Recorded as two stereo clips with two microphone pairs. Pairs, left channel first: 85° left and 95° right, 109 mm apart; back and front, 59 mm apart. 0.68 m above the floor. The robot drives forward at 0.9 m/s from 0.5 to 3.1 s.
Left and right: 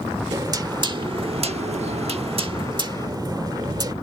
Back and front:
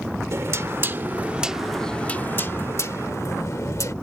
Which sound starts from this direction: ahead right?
Knocking, at 0.3 s.